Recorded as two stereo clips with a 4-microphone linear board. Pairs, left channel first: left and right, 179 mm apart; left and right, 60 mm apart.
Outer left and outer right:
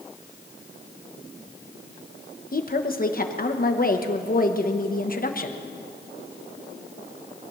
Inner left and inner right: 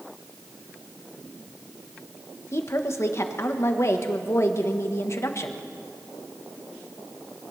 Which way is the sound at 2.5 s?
55° left (ahead or behind).